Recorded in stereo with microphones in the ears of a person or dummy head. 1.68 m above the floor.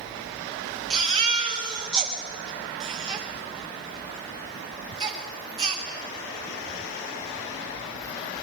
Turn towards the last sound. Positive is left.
turn(degrees=-25)  # may be behind; listen again after turning